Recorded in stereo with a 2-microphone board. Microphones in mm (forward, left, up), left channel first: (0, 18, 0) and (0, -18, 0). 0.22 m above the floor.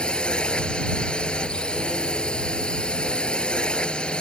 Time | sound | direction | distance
0.0 | a drone | 30° left (ahead or behind) | ?